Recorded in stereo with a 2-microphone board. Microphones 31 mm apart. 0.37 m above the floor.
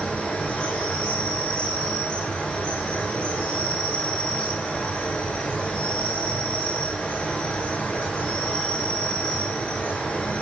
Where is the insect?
45° left (ahead or behind), 8.5 m.